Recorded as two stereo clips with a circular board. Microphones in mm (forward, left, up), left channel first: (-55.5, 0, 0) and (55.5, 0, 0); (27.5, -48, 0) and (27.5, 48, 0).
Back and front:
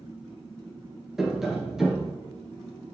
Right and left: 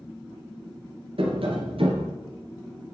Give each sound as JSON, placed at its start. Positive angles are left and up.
{"t": 1.2, "sound": "tapping", "azimuth_deg": 85, "distance_m": 2.5}